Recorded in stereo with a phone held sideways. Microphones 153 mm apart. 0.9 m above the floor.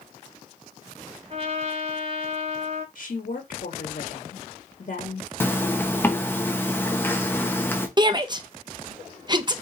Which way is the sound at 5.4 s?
15° left (ahead or behind).